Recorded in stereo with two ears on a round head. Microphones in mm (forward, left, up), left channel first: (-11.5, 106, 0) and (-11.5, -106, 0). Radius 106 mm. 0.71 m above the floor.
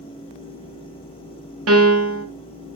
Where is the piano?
60° right (ahead or behind), 1.9 m.